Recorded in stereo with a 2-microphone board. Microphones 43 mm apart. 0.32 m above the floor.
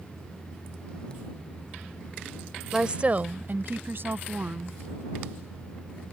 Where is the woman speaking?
10° right (ahead or behind); by 4.8 s 60° right (ahead or behind).